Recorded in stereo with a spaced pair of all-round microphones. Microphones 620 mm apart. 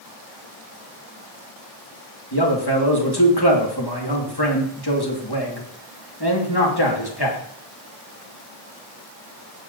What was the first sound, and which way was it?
A man speaking, 40° left (ahead or behind).